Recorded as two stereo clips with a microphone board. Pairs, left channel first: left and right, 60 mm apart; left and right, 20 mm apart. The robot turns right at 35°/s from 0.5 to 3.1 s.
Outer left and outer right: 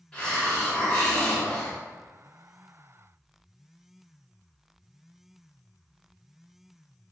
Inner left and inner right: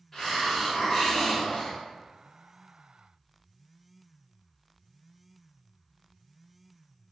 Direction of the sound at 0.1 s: 25° left.